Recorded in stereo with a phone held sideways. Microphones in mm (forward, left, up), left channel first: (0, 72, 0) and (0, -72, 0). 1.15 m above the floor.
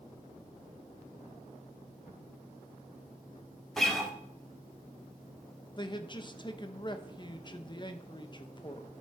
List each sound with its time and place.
3.8 s a guitar: centre (ahead or behind), 1.5 m
5.8 s a man speaking: 30° left (ahead or behind), 0.9 m